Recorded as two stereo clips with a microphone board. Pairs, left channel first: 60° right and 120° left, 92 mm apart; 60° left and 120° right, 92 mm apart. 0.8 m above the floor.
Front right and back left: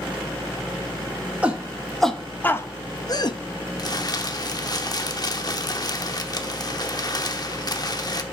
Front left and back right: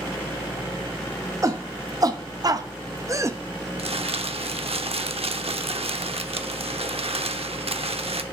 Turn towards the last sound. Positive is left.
turn(degrees=-105)